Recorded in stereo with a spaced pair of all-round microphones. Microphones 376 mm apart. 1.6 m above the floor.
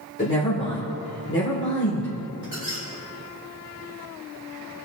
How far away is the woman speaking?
About 1.7 m.